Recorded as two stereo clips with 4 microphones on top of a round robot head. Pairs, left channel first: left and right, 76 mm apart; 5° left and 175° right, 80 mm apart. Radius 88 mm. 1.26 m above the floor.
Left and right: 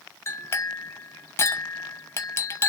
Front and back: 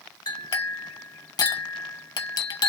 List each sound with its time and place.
0.3 s a clink: 35° left, 0.8 m